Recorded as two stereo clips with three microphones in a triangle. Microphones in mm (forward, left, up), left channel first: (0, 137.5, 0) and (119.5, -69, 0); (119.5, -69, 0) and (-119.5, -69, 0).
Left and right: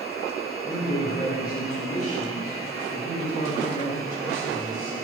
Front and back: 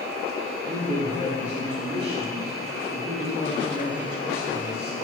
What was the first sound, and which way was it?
A man speaking, 135° left.